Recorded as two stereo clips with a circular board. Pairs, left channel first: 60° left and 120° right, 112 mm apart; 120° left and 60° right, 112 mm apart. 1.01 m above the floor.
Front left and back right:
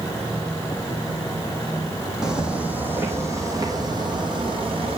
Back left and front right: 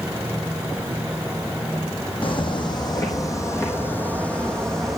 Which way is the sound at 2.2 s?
155° left.